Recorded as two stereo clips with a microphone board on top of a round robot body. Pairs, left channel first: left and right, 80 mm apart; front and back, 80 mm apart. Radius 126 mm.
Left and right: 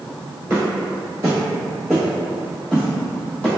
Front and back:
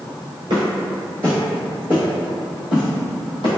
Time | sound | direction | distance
0.5 | footsteps | 155° right | 0.9 m